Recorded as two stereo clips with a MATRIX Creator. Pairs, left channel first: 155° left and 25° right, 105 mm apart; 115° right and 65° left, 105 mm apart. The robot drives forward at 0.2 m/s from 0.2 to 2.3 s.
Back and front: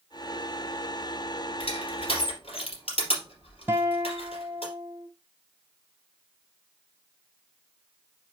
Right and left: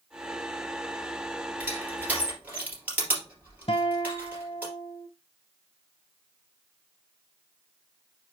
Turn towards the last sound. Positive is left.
turn(degrees=-90)